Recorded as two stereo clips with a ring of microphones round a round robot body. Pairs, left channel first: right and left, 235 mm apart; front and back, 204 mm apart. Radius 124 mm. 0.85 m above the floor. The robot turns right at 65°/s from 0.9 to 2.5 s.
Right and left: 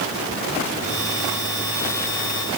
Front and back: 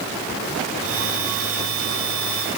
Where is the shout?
I don't hear a shout.